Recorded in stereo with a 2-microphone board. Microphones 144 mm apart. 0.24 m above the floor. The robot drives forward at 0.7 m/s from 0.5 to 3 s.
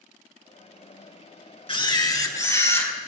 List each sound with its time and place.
1.7 s a camera shutter: 40° left (ahead or behind), 0.6 m; by 2.9 s 15° left (ahead or behind), 1.4 m